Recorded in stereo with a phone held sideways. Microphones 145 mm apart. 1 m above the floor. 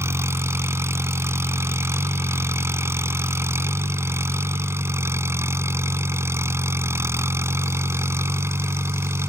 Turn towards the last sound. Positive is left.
turn(degrees=-15)  # may be behind; listen again after turning